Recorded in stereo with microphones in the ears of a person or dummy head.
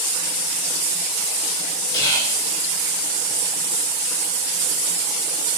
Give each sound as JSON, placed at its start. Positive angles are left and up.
{"t": 1.9, "sound": "whispering", "side_deg": 20, "distance_m": 1.1}